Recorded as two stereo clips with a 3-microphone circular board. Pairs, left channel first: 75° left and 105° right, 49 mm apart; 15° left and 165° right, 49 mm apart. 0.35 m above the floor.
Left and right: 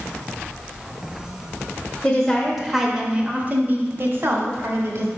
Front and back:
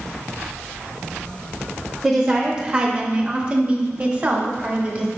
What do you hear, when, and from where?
2.0 s a woman speaking: 120° left, 0.9 m; by 5.1 s 105° right, 1.6 m